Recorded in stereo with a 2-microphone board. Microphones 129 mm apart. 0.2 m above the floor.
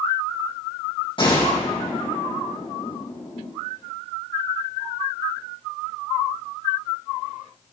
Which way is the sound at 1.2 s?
40° left (ahead or behind).